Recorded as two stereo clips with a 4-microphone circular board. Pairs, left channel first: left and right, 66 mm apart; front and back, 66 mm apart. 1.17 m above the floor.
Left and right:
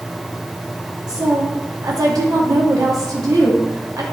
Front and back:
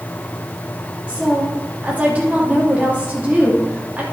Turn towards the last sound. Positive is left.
turn(degrees=-110)